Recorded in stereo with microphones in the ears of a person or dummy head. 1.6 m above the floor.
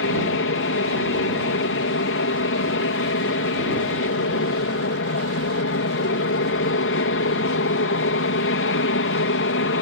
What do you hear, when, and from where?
0.0 s an aircraft: 60° left (ahead or behind)